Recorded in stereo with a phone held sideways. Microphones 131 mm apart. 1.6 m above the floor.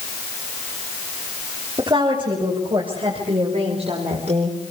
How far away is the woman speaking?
About 7.5 m.